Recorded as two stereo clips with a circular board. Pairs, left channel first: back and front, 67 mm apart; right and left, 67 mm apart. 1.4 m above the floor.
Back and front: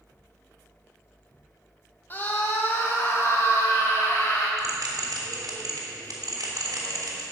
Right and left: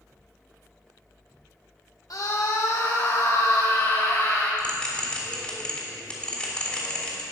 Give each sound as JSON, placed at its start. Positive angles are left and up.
{"t": 2.1, "sound": "a scream", "azimuth_deg": -120, "distance_m": 2.0}
{"t": 4.6, "sound": "a bell", "azimuth_deg": -15, "distance_m": 3.0}